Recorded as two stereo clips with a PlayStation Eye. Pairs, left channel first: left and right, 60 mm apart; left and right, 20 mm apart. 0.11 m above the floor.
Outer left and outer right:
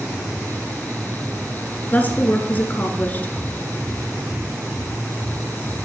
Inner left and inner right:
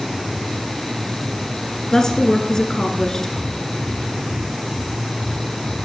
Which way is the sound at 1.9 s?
30° left (ahead or behind).